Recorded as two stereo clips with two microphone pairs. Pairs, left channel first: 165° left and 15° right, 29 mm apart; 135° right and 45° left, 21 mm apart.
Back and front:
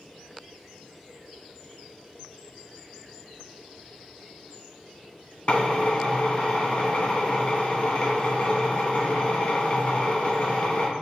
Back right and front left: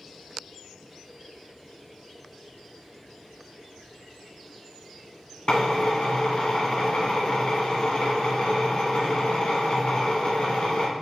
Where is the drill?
155° right, 0.8 m.